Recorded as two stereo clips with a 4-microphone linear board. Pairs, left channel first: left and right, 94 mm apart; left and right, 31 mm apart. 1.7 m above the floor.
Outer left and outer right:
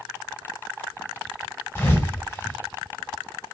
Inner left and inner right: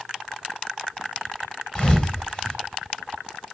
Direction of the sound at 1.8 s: 20° left (ahead or behind).